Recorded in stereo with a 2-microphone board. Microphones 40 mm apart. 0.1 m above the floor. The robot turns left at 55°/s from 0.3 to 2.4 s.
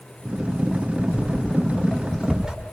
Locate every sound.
1.1 s footsteps: 50° left (ahead or behind), 6 m; by 2.5 s 15° right (ahead or behind), 7 m